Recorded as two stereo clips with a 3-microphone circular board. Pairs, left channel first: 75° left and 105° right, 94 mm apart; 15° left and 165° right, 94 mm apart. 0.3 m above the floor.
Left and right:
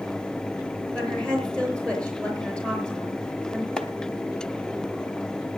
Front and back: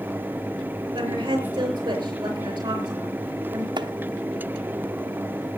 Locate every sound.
0.9 s a woman speaking: 155° left, 6.5 m
3.8 s chopping: 155° left, 1.1 m